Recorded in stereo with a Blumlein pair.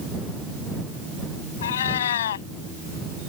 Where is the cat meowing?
60° left.